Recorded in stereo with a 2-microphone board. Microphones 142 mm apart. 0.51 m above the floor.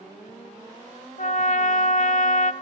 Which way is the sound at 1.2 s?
60° left (ahead or behind).